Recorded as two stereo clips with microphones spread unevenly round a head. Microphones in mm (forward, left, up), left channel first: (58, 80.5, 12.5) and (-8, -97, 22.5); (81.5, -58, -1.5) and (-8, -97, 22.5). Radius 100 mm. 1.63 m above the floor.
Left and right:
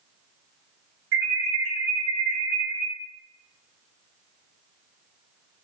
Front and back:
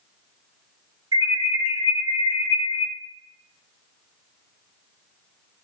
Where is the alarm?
135° right, 1.8 m.